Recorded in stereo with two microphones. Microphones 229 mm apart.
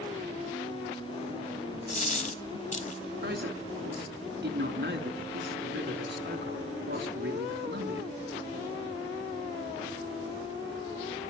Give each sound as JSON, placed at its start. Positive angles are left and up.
{"t": 1.9, "sound": "a dropped coin", "side_deg": 35, "distance_m": 1.2}
{"t": 3.2, "sound": "a man speaking", "side_deg": -50, "distance_m": 4.0}